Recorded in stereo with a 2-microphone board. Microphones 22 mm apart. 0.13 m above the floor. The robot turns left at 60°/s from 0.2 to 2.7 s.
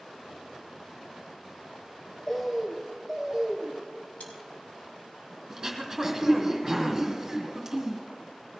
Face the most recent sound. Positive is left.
turn(degrees=-15)  # may be behind; listen again after turning